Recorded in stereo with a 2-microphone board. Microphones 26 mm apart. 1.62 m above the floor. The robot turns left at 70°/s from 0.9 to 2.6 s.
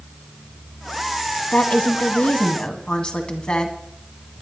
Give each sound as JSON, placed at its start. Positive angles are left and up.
{"t": 1.5, "sound": "a woman speaking", "azimuth_deg": 110, "distance_m": 2.0}